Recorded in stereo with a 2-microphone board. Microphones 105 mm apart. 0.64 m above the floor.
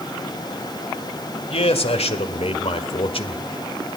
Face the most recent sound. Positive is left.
turn(degrees=60)  # may be behind; listen again after turning